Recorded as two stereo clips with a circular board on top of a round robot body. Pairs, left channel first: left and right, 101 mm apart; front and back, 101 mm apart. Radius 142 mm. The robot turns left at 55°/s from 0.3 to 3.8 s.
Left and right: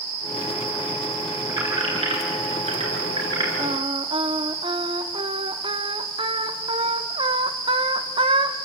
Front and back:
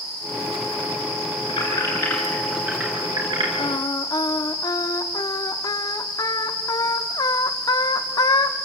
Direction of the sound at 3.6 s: 40° right.